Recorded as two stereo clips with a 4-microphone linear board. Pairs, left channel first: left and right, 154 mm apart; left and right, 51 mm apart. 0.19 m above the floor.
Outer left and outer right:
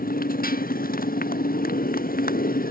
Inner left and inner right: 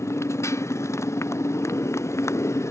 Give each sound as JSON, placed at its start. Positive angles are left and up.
{"t": 0.0, "sound": "a motorcycle", "side_deg": 70}